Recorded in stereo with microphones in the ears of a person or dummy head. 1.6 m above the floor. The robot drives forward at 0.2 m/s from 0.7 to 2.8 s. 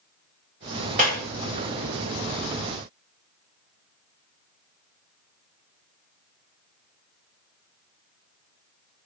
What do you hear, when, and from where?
1.0 s a clap: 45° right (ahead or behind), 4.5 m; by 1.3 s 40° right (ahead or behind), 4.5 m